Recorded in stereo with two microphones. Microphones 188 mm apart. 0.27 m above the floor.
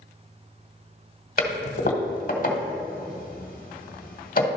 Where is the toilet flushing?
45° left (ahead or behind), 1.0 m.